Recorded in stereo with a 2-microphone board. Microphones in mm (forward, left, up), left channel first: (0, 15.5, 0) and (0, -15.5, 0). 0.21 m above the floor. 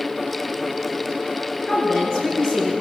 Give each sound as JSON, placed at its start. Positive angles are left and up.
{"t": 1.7, "sound": "a woman speaking", "side_deg": 25, "distance_m": 3.0}